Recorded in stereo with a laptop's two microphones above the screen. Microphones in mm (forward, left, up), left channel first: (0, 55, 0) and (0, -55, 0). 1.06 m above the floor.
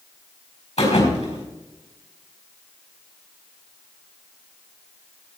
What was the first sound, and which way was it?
A thud, 80° left.